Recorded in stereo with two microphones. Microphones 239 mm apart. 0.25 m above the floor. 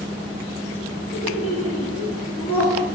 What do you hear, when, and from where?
1.1 s laughter: 65° left (ahead or behind), 3 m